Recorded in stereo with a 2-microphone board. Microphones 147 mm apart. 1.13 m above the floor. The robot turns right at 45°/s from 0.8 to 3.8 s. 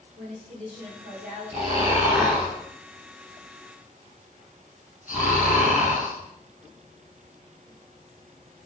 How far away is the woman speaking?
About 4.5 m.